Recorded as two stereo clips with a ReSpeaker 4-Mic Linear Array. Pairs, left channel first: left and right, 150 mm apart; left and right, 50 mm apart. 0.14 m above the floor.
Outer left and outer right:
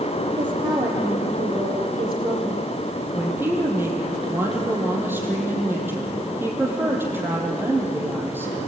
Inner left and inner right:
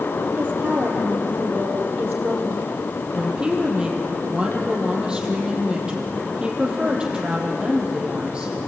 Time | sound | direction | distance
0.4 | a woman speaking | 30° right (ahead or behind) | 4.5 m
3.1 | a woman speaking | 15° right (ahead or behind) | 5 m